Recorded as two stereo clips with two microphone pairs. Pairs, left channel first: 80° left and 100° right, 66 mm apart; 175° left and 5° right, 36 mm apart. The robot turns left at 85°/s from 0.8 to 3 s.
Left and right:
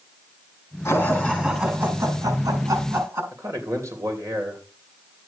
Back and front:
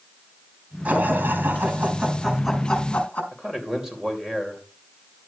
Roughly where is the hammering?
No hammering in this recording.